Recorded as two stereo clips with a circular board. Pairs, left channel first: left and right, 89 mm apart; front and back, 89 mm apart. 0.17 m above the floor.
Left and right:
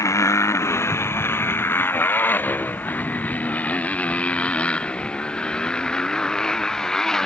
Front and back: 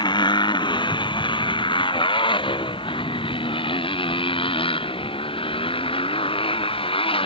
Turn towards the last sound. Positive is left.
turn(degrees=5)